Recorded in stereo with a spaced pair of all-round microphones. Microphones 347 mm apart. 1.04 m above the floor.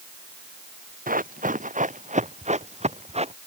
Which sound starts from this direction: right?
Running footsteps, at 1.1 s.